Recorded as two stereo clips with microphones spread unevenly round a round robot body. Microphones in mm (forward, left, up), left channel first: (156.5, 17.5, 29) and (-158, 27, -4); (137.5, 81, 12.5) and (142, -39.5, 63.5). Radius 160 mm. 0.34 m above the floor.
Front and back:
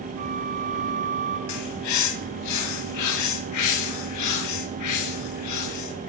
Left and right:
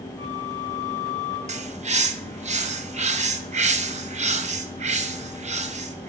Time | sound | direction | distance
0.2 | a flute | 150° left | 3.5 m
1.5 | a bird | 45° right | 0.8 m